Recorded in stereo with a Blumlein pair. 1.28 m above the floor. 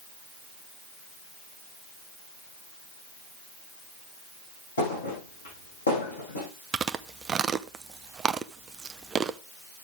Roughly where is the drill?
No drill in this recording.